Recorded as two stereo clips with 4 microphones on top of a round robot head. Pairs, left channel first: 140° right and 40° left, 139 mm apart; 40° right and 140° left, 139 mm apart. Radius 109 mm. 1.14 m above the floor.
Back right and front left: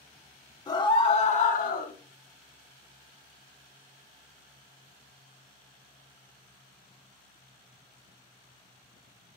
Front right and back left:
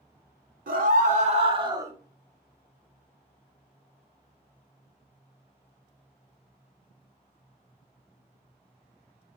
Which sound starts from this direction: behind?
A scream, at 0.7 s.